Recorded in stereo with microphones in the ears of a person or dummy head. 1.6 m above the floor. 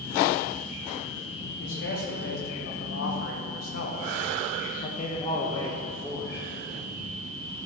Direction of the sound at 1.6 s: 65° left (ahead or behind).